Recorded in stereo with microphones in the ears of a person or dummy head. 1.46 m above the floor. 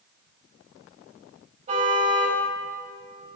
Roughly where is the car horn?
Right.